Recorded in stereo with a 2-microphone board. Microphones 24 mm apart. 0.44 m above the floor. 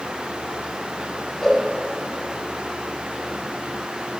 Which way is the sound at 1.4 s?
15° left (ahead or behind).